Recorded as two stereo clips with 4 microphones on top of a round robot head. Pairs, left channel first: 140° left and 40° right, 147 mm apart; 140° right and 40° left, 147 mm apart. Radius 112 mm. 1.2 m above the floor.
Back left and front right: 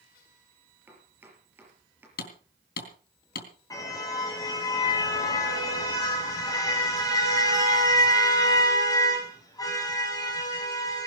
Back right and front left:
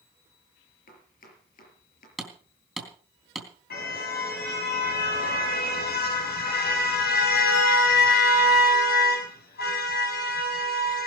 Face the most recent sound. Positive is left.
turn(degrees=-150)